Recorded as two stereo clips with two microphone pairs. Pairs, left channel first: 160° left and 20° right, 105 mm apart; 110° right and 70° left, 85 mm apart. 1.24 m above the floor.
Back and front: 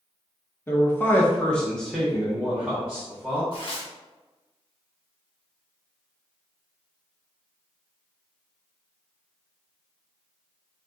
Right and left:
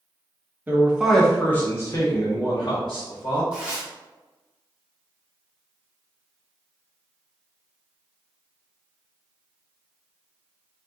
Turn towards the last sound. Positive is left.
turn(degrees=145)